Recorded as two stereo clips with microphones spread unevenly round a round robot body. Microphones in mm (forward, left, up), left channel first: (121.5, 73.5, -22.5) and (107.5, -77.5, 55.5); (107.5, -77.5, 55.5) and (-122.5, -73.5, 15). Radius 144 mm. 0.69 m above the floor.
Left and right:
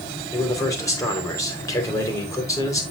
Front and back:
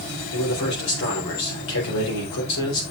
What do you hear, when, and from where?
0.3 s a man speaking: 25° left, 3.5 m